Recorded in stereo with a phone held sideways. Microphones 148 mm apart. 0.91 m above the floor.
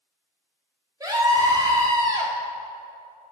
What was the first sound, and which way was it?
A scream, 25° right (ahead or behind).